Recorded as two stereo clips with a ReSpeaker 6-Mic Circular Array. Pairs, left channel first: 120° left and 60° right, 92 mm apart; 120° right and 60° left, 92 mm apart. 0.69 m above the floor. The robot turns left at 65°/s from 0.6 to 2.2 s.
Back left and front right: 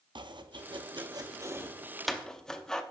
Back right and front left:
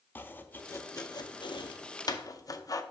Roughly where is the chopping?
Ahead right.